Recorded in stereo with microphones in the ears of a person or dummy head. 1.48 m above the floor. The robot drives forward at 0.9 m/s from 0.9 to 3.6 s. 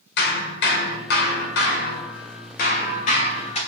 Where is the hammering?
60° left (ahead or behind), 2 m; by 3.6 s 40° left (ahead or behind), 3 m.